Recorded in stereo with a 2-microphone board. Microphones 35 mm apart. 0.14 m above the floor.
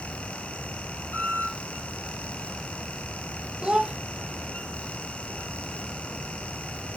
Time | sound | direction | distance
1.1 | a squeak | 70° left (ahead or behind) | 1.8 m
3.6 | a child speaking | 25° right (ahead or behind) | 1.0 m